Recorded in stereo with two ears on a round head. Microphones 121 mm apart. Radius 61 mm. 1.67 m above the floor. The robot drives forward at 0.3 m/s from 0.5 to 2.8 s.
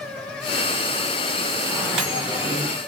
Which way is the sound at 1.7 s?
5° right (ahead or behind).